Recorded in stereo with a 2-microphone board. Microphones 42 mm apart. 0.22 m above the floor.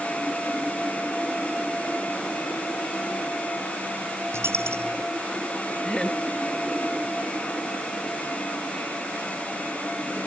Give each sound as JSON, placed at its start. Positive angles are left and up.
{"t": 4.3, "sound": "a dropped coin", "side_deg": -85}
{"t": 5.8, "sound": "laughter", "side_deg": 15}